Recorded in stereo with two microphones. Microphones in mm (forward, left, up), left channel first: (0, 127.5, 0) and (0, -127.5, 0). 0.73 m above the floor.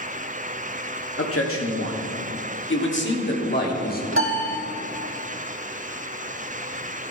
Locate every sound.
1.2 s a man speaking: 60° left (ahead or behind), 1.9 m; by 4.0 s 35° left (ahead or behind), 2 m
4.1 s a piano: 55° right (ahead or behind), 1.5 m